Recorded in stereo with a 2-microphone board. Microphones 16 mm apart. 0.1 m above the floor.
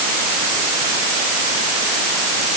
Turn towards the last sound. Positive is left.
No sound to turn to.